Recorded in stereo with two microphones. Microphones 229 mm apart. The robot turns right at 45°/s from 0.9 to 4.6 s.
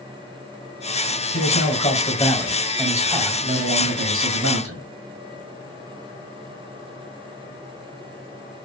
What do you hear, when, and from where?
1.3 s a man speaking: 115° left, 2.0 m; by 4.8 s 95° right, 2.0 m